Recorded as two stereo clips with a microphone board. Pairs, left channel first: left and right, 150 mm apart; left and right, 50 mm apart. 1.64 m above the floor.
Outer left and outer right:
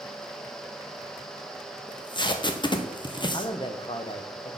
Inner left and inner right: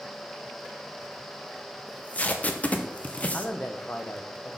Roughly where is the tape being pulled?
Left.